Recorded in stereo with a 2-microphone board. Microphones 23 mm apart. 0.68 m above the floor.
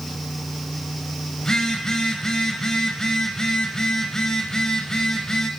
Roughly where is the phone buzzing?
Left.